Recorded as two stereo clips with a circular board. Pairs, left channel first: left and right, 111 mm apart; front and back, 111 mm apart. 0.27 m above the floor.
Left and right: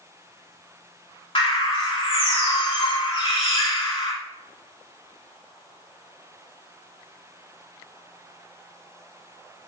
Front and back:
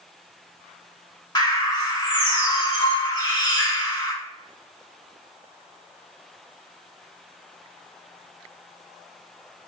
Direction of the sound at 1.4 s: 55° left.